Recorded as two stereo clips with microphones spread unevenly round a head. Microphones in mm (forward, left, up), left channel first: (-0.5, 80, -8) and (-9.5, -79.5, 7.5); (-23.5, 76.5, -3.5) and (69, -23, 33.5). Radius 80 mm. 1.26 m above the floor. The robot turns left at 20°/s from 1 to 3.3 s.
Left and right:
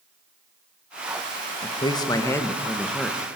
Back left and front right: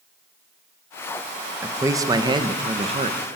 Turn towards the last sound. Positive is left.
turn(degrees=-10)